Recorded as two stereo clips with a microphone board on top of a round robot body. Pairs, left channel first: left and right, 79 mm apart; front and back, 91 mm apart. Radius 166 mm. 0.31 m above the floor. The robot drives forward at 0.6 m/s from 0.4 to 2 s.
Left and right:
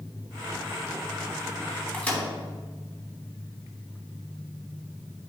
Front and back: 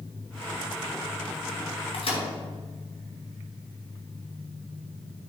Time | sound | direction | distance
1.9 | a microwave | 15° left | 3 m